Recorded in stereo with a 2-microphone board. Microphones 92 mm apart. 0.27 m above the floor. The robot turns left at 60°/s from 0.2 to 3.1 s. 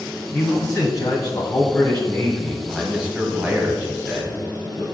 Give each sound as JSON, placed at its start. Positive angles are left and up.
{"t": 0.3, "sound": "a man speaking", "azimuth_deg": 145, "distance_m": 1.3}